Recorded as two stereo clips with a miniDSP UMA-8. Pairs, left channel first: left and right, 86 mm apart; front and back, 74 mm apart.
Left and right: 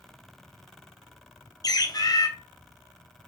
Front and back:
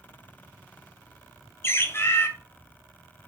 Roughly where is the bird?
Ahead left.